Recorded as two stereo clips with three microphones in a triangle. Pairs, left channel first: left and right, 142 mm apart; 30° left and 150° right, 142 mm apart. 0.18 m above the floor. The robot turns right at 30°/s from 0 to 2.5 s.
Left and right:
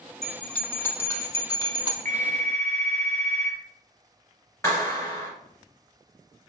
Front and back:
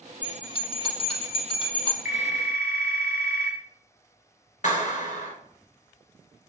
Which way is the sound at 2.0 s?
65° right.